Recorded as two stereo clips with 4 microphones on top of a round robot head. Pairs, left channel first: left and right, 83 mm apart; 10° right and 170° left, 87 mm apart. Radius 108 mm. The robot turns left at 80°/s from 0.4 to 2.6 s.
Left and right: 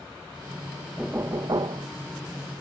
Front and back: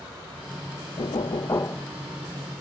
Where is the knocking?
10° right; by 1.9 s 85° right.